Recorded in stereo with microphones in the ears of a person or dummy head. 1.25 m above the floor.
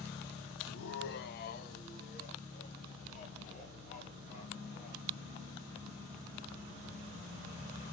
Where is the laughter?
70° left (ahead or behind), 0.6 m; by 5.0 s 40° left (ahead or behind), 3.5 m.